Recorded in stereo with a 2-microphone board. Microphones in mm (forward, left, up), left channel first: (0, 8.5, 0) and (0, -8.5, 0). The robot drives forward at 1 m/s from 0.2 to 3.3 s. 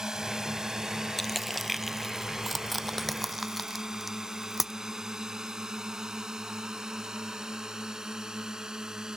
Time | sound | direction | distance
0.0 | a drone | 35° right (ahead or behind) | ?
1.2 | crushing | 10° left (ahead or behind) | ?